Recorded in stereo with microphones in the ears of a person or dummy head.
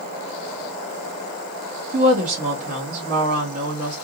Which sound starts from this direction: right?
A woman speaking, at 1.9 s.